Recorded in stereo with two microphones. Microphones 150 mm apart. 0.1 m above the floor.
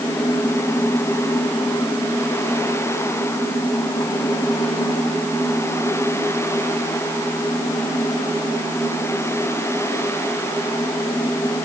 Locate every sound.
Only background noise.